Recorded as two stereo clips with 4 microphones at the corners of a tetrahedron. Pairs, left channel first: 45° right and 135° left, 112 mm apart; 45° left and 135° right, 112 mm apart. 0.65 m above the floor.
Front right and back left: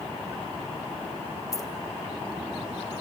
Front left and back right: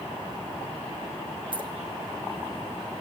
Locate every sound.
1.5 s keys jangling: 100° right, 0.9 m